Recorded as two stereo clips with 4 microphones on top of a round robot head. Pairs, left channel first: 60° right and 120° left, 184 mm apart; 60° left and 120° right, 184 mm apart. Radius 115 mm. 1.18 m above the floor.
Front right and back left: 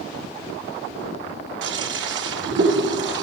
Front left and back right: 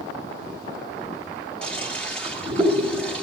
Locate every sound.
1.6 s a toilet flushing: 140° left, 3 m